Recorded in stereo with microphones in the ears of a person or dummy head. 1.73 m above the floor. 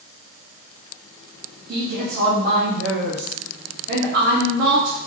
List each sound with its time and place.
1.7 s a woman speaking: 50° right (ahead or behind), 0.9 m